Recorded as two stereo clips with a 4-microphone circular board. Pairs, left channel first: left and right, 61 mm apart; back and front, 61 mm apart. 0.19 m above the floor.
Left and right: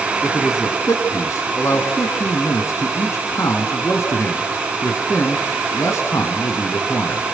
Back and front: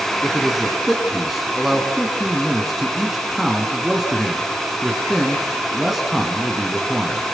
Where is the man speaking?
85° left, 2.5 m.